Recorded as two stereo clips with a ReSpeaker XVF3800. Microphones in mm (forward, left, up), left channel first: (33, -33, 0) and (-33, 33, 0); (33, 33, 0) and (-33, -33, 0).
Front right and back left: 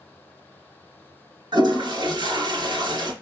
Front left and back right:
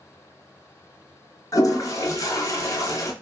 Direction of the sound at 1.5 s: 95° left.